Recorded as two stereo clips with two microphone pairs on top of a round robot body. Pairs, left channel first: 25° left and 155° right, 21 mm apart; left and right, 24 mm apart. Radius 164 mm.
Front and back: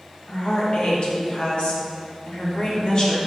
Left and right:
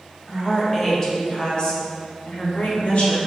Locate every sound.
0.3 s a woman speaking: 20° left, 2.5 m; by 3.2 s 65° left, 2.5 m